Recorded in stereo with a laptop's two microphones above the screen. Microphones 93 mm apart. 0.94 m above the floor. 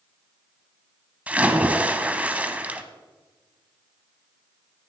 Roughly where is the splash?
Centre.